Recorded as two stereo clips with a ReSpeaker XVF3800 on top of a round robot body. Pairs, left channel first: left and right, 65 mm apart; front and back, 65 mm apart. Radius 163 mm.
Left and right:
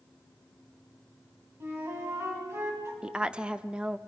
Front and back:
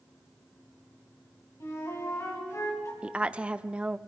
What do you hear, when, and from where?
1.6 s a flute: 40° right, 4 m
3.0 s a woman speaking: 140° right, 0.9 m